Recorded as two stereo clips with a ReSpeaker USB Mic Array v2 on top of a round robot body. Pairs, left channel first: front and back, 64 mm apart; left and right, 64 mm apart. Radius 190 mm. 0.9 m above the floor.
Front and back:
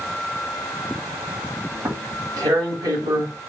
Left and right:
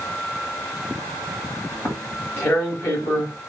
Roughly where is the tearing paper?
Behind left.